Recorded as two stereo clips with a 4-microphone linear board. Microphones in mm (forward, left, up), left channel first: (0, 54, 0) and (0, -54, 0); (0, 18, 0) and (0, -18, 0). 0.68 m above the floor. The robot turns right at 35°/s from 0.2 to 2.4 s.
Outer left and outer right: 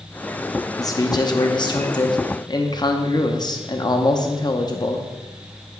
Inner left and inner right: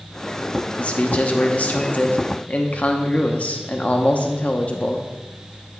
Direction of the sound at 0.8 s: 55° left.